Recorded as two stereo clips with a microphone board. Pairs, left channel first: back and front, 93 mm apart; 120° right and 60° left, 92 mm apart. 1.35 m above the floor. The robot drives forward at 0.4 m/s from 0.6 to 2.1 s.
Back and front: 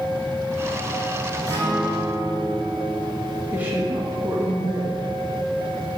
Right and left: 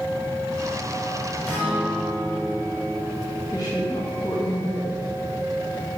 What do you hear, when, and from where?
1.5 s a guitar: 50° right, 4 m; by 3.4 s 55° right, 4 m
3.5 s a woman speaking: 70° right, 2 m